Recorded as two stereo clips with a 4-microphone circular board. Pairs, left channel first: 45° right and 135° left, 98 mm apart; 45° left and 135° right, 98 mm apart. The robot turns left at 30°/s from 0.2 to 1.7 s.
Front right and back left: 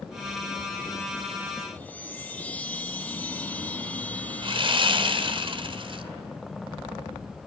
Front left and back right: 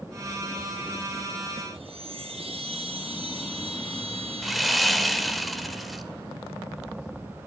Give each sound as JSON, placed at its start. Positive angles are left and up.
{"t": 1.7, "sound": "a chime", "azimuth_deg": -120, "distance_m": 7.0}
{"t": 4.4, "sound": "sawing", "azimuth_deg": 135, "distance_m": 2.5}